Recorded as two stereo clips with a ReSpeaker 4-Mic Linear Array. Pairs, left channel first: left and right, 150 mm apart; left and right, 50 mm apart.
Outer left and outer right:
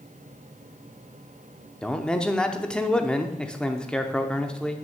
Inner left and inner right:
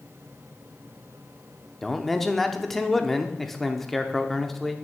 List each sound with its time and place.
1.8 s a man speaking: 5° left (ahead or behind), 0.7 m